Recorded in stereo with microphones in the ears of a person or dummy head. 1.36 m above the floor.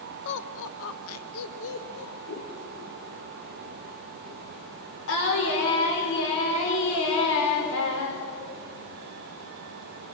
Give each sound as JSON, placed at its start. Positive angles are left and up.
{"t": 0.2, "sound": "laughter", "side_deg": 55, "distance_m": 1.1}
{"t": 2.3, "sound": "scissors", "side_deg": 70, "distance_m": 3.0}
{"t": 5.1, "sound": "singing", "side_deg": 70, "distance_m": 5.5}